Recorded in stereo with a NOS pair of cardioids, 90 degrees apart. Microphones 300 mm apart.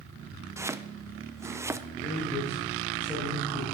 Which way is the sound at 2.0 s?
5° left.